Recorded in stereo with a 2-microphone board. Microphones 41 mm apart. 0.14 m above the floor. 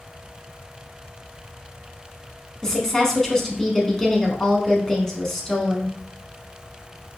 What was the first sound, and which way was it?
A woman speaking, 15° left (ahead or behind).